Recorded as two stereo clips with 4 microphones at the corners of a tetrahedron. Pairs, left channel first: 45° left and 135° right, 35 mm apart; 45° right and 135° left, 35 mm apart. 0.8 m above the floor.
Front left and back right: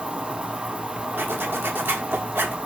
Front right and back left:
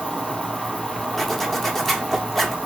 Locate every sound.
0.0 s an insect: 175° right, 0.9 m
1.2 s a zipper: 125° right, 1.0 m